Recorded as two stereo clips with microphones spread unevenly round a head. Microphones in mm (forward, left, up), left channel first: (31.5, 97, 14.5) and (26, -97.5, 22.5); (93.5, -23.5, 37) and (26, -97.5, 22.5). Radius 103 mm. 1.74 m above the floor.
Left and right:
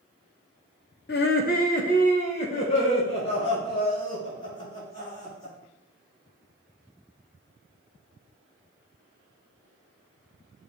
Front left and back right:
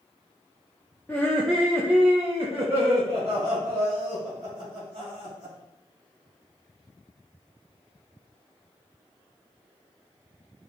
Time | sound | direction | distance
1.1 | laughter | 120° left | 0.8 m